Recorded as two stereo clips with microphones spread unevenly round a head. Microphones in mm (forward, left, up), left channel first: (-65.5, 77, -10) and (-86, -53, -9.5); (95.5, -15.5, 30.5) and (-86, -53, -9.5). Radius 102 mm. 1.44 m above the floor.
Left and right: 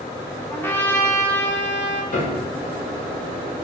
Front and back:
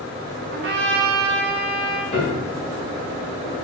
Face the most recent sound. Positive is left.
turn(degrees=65)